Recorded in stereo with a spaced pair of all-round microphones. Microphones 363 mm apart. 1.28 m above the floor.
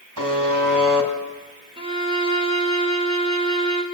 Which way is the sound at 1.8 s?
15° right (ahead or behind).